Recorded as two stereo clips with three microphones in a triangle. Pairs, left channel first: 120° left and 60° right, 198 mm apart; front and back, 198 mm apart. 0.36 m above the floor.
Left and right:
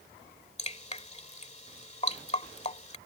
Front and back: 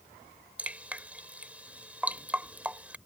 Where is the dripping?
100° left.